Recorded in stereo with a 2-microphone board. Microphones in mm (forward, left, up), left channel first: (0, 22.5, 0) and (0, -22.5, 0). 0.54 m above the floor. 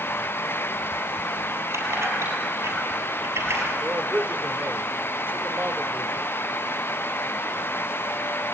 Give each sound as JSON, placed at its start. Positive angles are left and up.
{"t": 1.7, "sound": "keys jangling", "side_deg": -80, "distance_m": 7.5}
{"t": 3.8, "sound": "a man speaking", "side_deg": -45, "distance_m": 1.3}